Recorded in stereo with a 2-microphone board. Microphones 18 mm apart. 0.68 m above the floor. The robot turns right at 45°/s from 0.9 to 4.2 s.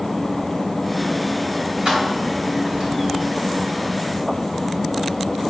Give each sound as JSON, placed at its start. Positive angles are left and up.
{"t": 1.9, "sound": "keys jangling", "side_deg": -50, "distance_m": 2.5}